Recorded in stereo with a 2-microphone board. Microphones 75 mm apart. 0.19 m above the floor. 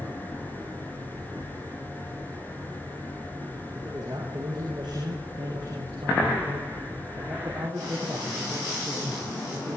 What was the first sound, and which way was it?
A man speaking, 60° right (ahead or behind).